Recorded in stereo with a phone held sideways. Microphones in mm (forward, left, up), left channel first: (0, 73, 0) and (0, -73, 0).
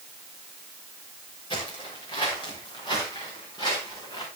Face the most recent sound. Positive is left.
turn(degrees=25)  # may be behind; listen again after turning